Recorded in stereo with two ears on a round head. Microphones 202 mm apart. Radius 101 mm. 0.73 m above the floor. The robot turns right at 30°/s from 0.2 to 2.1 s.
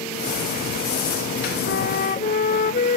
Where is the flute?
50° left (ahead or behind); by 3.0 s 35° left (ahead or behind).